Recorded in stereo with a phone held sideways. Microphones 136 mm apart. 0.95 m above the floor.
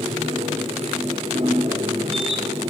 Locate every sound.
0.0 s a machine running: 45° right (ahead or behind), 1.7 m